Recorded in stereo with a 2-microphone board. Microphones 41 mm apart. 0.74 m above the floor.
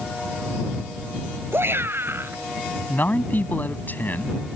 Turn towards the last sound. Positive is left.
turn(degrees=50)  # may be behind; listen again after turning